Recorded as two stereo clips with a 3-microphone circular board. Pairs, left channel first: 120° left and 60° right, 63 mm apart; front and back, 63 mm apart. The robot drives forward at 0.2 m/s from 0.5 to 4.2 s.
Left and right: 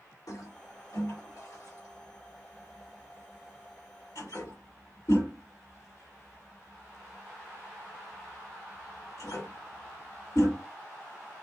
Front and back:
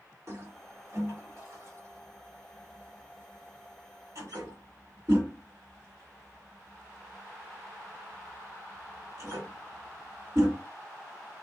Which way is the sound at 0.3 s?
135° left.